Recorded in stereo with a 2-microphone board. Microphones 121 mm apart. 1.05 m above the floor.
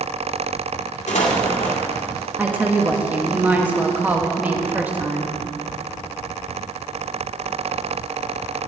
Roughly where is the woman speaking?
Centre.